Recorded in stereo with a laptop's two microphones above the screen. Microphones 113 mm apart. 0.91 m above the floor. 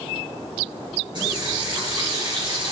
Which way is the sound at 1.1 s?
40° right (ahead or behind).